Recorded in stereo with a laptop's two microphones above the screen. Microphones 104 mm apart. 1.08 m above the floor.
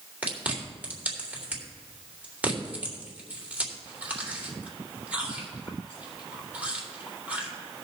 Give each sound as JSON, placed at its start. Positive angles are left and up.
{"t": 0.2, "sound": "chewing", "side_deg": -15, "distance_m": 3.0}